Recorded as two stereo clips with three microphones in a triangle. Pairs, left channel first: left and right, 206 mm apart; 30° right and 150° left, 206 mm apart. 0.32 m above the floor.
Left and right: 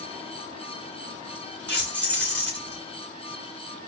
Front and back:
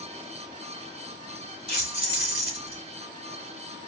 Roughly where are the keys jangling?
Ahead.